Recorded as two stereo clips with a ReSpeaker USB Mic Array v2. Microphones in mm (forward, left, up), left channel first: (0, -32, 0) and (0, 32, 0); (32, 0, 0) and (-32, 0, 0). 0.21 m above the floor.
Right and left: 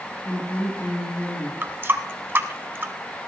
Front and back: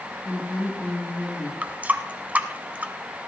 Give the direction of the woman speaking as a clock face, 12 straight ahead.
2 o'clock.